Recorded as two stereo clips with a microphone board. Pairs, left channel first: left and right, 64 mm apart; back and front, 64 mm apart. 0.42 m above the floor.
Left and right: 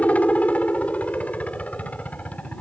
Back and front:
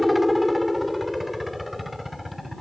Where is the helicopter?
85° left.